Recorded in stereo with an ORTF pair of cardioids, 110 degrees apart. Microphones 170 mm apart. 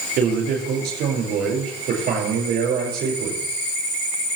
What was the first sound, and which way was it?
A man speaking, 65° right.